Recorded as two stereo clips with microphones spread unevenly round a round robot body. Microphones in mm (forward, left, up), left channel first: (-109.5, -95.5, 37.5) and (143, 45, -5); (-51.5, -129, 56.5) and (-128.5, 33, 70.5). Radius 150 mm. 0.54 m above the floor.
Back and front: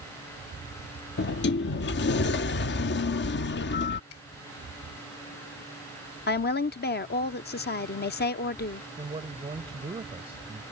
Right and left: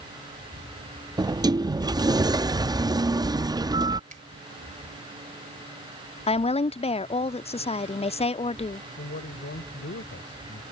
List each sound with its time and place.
1.2 s a sliding door: 175° left
4.1 s a finger snap: 160° left
6.3 s a woman speaking: 100° right
9.0 s a man speaking: 40° right